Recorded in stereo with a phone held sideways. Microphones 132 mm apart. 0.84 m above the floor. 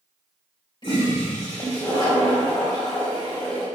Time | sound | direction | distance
0.8 | a toilet flushing | 40° left (ahead or behind) | 3.5 m